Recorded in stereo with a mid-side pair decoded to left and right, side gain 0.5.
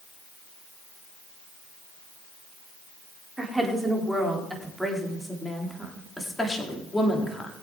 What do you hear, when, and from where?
3.4 s a woman speaking: 15° right, 3.5 m; by 7.5 s 25° left, 3 m